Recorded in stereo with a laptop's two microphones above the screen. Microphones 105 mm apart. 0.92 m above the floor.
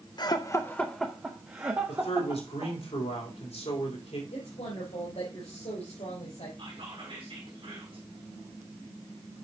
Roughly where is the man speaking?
Left.